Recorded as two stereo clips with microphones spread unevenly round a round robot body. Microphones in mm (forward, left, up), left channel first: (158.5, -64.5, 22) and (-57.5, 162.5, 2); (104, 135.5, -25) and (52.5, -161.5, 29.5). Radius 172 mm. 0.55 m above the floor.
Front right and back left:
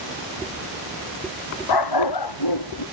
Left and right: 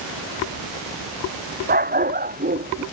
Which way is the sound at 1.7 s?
40° right.